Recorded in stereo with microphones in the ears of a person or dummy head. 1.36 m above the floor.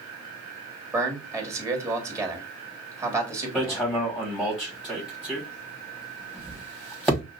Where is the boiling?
No boiling in this recording.